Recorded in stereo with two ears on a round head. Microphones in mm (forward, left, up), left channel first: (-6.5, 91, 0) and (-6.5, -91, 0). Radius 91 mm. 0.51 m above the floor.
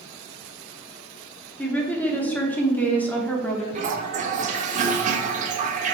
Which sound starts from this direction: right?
A toilet flushing, at 3.8 s.